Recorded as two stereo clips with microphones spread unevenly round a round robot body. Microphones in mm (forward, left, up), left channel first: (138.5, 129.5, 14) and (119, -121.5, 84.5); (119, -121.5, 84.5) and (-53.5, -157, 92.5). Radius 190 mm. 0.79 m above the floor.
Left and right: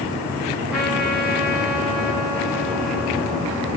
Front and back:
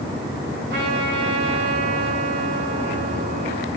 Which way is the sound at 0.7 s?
175° left.